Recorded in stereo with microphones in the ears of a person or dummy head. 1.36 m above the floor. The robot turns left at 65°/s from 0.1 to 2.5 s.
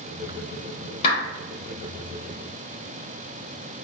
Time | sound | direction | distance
1.0 | a clap | 35° left (ahead or behind) | 1.0 m